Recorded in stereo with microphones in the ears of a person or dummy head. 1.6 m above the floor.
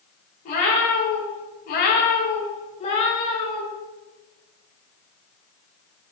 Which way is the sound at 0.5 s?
40° left (ahead or behind).